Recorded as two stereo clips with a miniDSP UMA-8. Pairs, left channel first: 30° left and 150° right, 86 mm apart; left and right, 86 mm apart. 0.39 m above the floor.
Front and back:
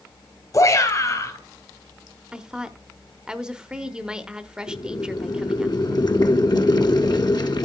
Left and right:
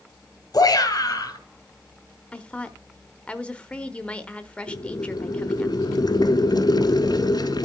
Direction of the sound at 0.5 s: 65° left.